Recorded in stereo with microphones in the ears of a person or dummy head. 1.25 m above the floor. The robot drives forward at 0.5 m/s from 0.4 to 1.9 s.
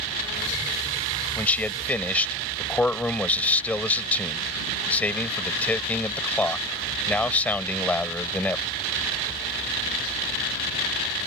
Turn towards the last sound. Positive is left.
turn(degrees=10)  # may be behind; listen again after turning